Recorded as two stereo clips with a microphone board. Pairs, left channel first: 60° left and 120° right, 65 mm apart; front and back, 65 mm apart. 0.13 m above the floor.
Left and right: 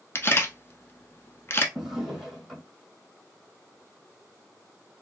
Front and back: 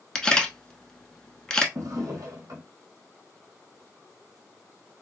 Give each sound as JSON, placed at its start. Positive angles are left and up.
{"t": 0.1, "sound": "a camera shutter", "azimuth_deg": 75, "distance_m": 0.8}
{"t": 1.8, "sound": "a drawer", "azimuth_deg": 155, "distance_m": 1.4}